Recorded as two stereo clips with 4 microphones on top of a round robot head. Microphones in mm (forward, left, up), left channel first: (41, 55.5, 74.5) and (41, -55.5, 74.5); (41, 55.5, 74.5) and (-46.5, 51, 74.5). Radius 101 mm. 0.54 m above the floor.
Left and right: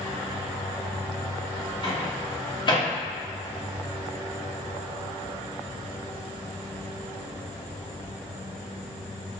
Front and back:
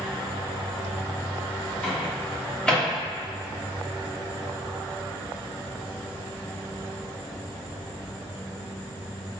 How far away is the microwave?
About 1.3 m.